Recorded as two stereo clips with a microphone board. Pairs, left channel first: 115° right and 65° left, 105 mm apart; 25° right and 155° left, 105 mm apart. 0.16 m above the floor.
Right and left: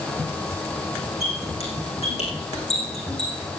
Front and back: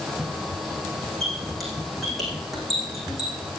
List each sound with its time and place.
1.2 s a squeak: 115° right, 5 m